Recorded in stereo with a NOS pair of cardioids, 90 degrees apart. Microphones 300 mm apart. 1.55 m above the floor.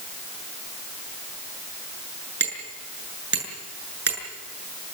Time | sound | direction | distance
2.4 | hammering | 40° right | 7.5 m